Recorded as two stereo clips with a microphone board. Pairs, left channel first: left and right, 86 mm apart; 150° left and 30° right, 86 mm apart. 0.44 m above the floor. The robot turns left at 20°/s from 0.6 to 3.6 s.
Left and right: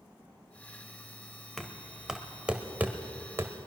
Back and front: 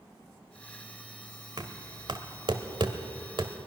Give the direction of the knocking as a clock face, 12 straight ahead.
12 o'clock.